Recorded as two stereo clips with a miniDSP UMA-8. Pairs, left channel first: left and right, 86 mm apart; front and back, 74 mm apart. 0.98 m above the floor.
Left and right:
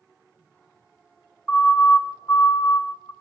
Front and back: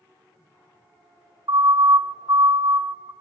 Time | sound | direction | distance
1.5 | a siren | 170° left | 3.5 m